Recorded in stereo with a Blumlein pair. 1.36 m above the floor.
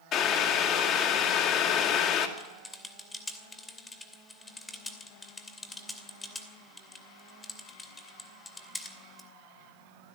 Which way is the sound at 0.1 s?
30° left.